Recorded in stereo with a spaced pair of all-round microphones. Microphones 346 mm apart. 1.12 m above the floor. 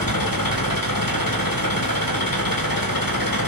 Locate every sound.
0.0 s an engine running: 75° left (ahead or behind), 2.5 m